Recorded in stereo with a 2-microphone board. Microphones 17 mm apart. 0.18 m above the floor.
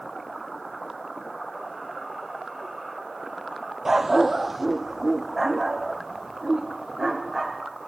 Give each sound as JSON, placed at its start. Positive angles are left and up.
{"t": 3.9, "sound": "a dog barking", "side_deg": -25, "distance_m": 1.1}